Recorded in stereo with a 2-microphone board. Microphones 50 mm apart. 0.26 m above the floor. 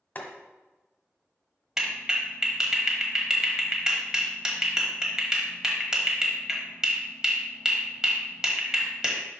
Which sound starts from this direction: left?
Boiling, at 0.1 s.